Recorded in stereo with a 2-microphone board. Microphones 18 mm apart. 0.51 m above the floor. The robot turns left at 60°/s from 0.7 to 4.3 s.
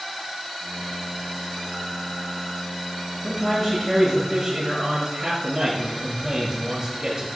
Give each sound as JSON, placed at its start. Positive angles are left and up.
{"t": 3.2, "sound": "a man speaking", "azimuth_deg": 25, "distance_m": 7.5}